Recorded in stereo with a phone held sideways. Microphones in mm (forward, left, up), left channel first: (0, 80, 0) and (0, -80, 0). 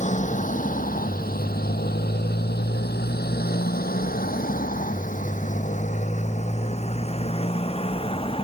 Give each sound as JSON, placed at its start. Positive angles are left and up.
{"t": 0.0, "sound": "a motorcycle", "side_deg": 50}